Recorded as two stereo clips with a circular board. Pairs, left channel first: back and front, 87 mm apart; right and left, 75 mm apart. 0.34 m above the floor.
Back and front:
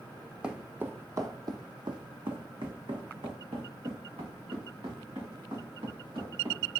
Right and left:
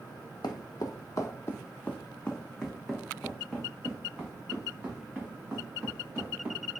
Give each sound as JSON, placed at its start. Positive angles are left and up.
{"t": 0.4, "sound": "footsteps", "azimuth_deg": -80, "distance_m": 0.8}